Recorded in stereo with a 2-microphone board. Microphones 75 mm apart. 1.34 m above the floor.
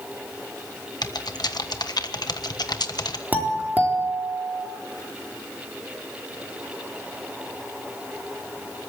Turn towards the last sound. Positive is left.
turn(degrees=-25)  # may be behind; listen again after turning